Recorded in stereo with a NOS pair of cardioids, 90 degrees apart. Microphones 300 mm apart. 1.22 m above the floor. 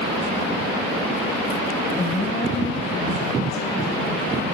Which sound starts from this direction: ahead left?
A woman speaking, at 2.0 s.